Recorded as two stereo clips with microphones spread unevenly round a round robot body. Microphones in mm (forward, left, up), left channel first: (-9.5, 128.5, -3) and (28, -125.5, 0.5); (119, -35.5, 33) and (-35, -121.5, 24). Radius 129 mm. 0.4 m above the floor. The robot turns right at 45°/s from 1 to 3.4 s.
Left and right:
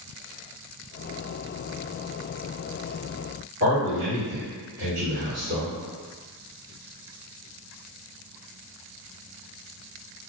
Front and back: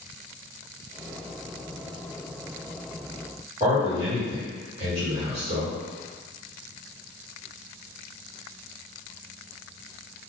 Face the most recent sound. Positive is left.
turn(degrees=-110)